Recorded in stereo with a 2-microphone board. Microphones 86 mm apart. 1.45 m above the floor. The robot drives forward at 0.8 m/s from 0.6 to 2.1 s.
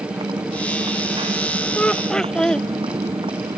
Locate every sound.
0.0 s a motorcycle: 85° right
1.8 s laughter: 15° left (ahead or behind); by 2.7 s 10° left (ahead or behind)